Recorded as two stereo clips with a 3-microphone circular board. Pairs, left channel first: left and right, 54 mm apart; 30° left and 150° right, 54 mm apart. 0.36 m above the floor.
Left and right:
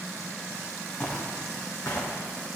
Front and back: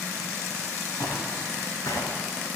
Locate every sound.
1.0 s footsteps: 20° left, 3 m; by 2.1 s 35° left, 3.5 m